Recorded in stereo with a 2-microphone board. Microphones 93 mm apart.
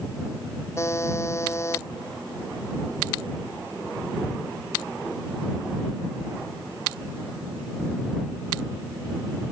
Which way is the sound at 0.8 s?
30° left (ahead or behind).